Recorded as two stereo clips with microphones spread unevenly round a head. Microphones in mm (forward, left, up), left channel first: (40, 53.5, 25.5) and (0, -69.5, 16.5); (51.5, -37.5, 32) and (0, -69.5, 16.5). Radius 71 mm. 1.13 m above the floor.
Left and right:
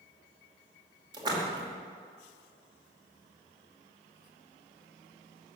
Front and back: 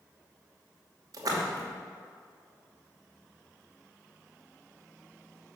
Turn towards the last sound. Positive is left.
turn(degrees=-165)